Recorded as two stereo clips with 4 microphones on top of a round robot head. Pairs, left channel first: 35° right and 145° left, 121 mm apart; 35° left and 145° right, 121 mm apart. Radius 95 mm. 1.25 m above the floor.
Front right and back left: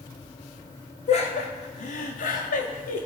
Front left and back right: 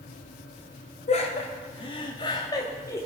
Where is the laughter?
Straight ahead, 2 m; by 3.0 s 35° right, 2.5 m.